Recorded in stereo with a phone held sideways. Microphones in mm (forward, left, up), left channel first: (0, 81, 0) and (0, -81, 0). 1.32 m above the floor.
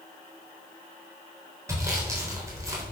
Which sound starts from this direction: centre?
Sawing, at 1.7 s.